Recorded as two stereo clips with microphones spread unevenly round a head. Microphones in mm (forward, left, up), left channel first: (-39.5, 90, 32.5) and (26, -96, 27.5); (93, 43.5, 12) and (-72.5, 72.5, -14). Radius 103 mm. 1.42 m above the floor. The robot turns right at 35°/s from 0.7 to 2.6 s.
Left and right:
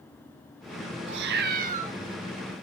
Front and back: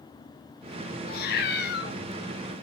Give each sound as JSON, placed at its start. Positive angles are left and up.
{"t": 1.1, "sound": "a cat meowing", "azimuth_deg": -40, "distance_m": 1.5}